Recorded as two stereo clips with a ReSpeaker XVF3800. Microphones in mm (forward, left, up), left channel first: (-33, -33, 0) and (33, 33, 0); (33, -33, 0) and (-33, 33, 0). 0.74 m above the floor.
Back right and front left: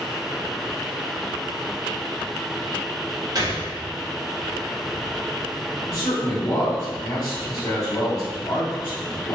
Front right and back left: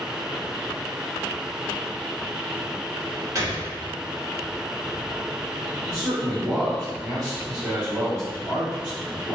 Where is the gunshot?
85° left, 1.1 m.